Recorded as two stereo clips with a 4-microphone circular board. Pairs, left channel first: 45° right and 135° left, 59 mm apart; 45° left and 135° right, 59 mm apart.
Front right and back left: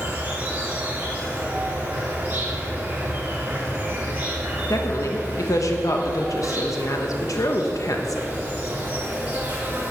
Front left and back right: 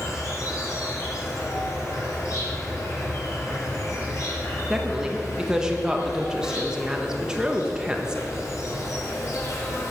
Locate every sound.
0.0 s an insect: 75° left, 3 m
4.7 s a woman speaking: 55° right, 1.2 m